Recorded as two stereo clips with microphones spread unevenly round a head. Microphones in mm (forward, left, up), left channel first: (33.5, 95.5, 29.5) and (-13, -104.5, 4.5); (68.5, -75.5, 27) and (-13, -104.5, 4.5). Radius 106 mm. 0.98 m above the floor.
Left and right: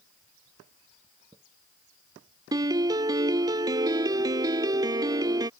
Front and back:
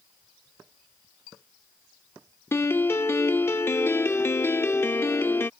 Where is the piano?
30° right.